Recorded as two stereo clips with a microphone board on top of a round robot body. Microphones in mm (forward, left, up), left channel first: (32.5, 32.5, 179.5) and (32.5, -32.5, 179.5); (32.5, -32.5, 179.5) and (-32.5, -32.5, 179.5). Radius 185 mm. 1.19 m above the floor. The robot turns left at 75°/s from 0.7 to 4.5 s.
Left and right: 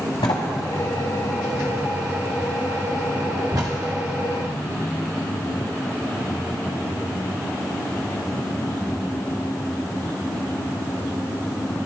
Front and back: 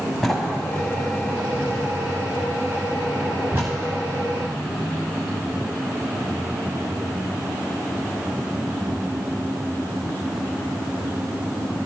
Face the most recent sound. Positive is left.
turn(degrees=160)